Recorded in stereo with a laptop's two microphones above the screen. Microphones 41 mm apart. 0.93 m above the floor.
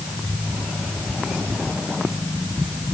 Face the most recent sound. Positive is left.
No sound to turn to.